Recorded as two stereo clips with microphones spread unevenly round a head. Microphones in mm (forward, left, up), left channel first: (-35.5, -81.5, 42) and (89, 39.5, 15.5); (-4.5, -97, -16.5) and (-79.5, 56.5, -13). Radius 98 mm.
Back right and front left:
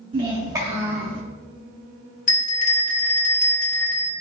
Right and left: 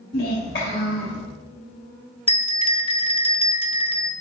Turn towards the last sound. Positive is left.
turn(degrees=-115)